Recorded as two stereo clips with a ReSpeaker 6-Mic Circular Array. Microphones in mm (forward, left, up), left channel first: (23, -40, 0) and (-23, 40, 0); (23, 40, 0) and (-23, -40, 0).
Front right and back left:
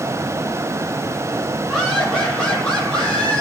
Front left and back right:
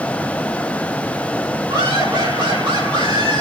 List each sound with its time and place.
1.7 s laughter: 150° right, 4 m; by 3.4 s 140° right, 6 m